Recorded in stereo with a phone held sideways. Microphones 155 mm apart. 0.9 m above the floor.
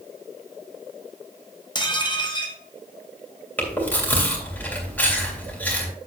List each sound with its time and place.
1.8 s dishes clattering: 30° left (ahead or behind), 1.1 m
3.6 s chewing: 10° left (ahead or behind), 2.5 m